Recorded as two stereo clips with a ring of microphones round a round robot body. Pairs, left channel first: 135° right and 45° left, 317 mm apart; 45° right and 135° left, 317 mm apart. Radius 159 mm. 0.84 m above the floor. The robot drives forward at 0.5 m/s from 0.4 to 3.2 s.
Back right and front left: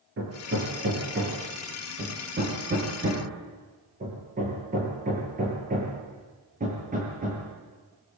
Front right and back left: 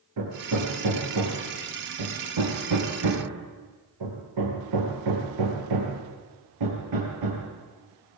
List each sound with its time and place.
0.2 s hammering: 100° left, 7.5 m; by 7.5 s 110° left, 8 m